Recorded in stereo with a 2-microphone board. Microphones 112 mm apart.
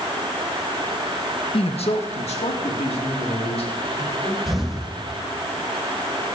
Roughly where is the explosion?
Centre.